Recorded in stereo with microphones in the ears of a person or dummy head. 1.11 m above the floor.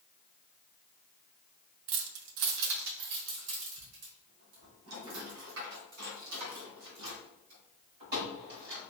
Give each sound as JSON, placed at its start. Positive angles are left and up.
{"t": 1.9, "sound": "keys jangling", "side_deg": -50, "distance_m": 0.5}